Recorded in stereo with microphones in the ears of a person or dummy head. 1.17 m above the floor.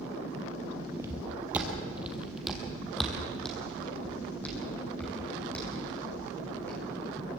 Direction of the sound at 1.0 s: 20° right (ahead or behind).